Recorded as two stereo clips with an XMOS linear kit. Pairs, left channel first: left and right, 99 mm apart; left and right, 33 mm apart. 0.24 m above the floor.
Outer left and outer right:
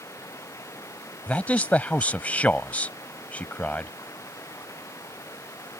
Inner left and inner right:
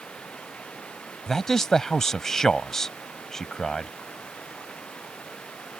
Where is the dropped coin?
I don't hear a dropped coin.